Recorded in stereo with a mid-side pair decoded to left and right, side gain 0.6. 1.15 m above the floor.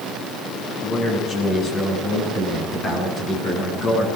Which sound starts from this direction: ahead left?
A man speaking, at 0.8 s.